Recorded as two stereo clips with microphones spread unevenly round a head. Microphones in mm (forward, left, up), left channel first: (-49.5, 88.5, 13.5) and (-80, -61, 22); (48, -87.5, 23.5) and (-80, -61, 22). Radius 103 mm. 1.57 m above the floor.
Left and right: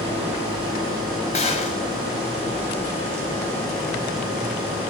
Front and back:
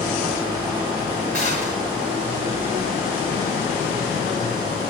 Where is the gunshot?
130° left, 8 m.